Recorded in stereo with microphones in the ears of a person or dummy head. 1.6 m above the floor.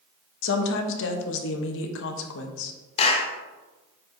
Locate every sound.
0.4 s a woman speaking: 70° left (ahead or behind), 0.9 m
3.0 s a clap: 30° left (ahead or behind), 1.0 m